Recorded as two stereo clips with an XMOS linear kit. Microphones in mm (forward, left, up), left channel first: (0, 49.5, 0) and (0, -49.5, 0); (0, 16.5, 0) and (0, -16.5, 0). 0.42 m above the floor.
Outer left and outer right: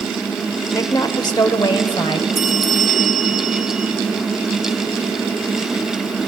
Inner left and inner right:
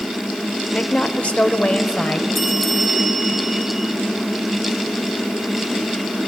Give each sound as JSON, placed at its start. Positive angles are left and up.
{"t": 0.7, "sound": "a woman speaking", "side_deg": 35, "distance_m": 1.0}
{"t": 2.4, "sound": "a bell", "side_deg": 0, "distance_m": 1.6}